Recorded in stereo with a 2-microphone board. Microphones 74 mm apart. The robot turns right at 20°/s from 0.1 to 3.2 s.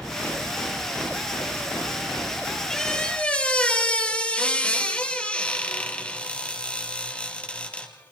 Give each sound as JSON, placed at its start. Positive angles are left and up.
{"t": 2.7, "sound": "a squeak", "side_deg": 5, "distance_m": 2.5}